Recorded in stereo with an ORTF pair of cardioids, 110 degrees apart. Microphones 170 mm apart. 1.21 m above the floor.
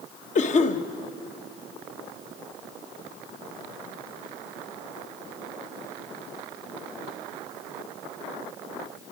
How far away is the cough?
About 1.2 m.